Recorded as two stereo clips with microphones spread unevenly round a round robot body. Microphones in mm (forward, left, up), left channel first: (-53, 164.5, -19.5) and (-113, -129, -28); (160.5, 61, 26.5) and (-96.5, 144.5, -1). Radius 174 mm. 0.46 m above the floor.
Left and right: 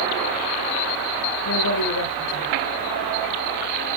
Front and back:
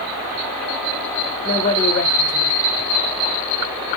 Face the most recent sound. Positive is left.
turn(degrees=30)